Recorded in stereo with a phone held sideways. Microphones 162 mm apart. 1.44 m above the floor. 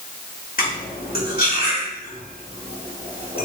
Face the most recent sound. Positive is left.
turn(degrees=65)  # may be behind; listen again after turning